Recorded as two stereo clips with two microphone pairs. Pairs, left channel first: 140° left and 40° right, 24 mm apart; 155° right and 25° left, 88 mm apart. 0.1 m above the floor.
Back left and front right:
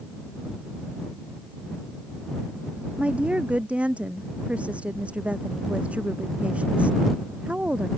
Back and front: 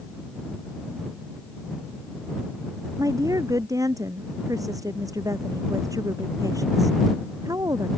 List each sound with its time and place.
3.0 s a woman speaking: 25° right